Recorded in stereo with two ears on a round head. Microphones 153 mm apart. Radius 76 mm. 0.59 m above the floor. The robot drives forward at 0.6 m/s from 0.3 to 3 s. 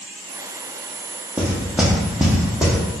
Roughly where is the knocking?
Centre.